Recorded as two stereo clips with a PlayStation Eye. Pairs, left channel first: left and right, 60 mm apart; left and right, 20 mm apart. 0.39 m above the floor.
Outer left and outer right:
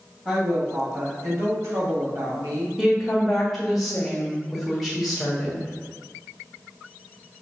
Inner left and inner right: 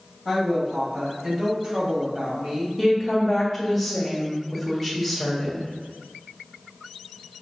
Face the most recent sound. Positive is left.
turn(degrees=0)  # may be behind; listen again after turning